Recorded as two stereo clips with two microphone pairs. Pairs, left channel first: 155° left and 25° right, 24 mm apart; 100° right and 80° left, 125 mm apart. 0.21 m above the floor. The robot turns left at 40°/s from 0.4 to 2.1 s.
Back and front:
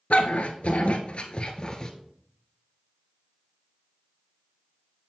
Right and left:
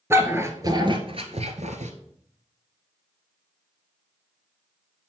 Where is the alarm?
I don't hear an alarm.